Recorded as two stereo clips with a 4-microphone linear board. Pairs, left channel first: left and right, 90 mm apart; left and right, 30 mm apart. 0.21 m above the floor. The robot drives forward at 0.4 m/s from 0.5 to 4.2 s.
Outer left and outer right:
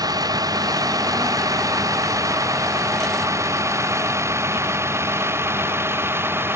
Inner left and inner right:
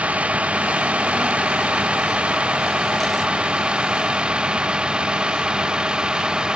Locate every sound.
0.0 s a vehicle: 45° right (ahead or behind); by 6.5 s 25° right (ahead or behind)